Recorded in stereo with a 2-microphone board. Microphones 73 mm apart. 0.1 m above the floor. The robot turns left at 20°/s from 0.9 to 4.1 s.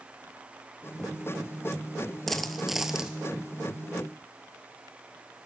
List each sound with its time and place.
2.3 s a dropped coin: 5° left (ahead or behind), 0.7 m; by 3.2 s 10° right (ahead or behind), 0.7 m